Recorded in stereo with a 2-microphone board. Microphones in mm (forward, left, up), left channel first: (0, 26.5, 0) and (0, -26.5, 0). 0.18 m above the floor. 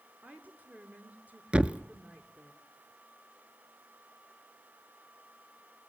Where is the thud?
20° right (ahead or behind), 0.7 m.